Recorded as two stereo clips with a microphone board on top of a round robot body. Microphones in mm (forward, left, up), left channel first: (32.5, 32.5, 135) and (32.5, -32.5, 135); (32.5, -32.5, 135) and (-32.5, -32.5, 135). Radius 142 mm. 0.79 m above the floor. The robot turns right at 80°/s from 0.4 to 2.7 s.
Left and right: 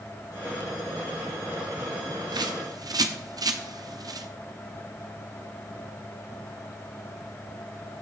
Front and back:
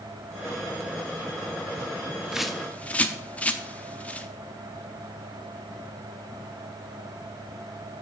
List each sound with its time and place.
2.3 s a bird: 100° right, 1.0 m; by 4.3 s 70° right, 1.0 m